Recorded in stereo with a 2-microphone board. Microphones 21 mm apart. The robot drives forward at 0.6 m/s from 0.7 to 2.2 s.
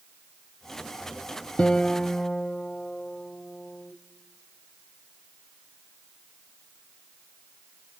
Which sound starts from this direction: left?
A guitar, at 1.6 s.